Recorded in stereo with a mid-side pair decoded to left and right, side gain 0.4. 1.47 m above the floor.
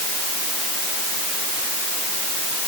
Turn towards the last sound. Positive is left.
No sound to turn to.